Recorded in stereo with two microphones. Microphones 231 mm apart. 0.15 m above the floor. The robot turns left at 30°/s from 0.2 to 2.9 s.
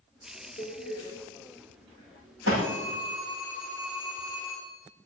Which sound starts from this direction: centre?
A phone ringing, at 2.6 s.